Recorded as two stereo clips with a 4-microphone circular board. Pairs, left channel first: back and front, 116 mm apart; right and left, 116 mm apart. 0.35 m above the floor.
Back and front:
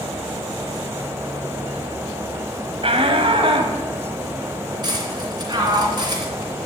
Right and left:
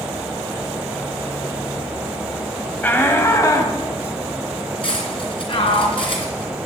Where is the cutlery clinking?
50° right, 3 m.